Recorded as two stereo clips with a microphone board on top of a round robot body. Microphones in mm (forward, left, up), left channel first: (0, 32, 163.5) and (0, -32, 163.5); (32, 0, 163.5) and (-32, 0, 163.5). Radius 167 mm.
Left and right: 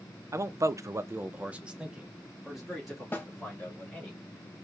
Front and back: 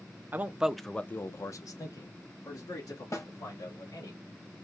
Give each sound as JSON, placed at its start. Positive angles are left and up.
{"t": 0.3, "sound": "a man speaking", "azimuth_deg": -125, "distance_m": 0.7}
{"t": 3.1, "sound": "a snare drum", "azimuth_deg": 30, "distance_m": 1.4}